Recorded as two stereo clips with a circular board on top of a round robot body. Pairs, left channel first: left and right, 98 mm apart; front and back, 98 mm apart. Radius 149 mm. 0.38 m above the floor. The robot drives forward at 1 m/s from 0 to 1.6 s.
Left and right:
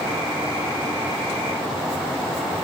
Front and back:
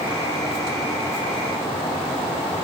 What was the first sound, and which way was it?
Only background noise.